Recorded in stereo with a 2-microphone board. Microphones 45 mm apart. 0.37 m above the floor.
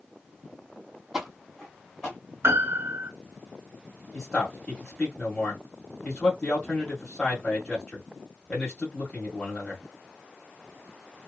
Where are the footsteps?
10° right (ahead or behind), 0.8 m; by 2.2 s 15° left (ahead or behind), 1.8 m.